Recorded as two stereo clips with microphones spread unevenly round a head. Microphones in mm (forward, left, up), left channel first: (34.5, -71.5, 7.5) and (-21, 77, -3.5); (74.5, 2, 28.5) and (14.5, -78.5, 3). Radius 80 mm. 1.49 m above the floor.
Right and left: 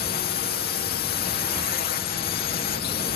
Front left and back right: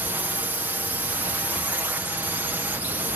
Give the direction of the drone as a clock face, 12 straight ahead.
2 o'clock.